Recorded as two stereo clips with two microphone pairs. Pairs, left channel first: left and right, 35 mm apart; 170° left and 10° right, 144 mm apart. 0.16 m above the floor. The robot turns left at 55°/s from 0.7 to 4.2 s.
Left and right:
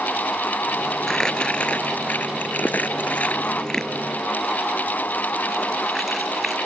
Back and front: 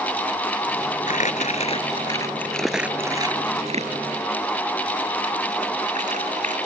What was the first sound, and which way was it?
Crumpling, 165° left.